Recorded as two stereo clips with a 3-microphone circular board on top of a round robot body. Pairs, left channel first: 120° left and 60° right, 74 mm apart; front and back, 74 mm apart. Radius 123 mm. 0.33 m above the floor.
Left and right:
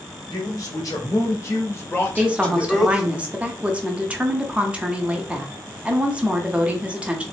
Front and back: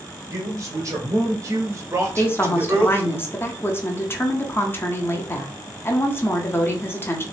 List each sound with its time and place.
0.3 s a man speaking: 140° left, 1.8 m; by 3.2 s 135° right, 1.0 m
2.2 s a woman speaking: straight ahead, 1.0 m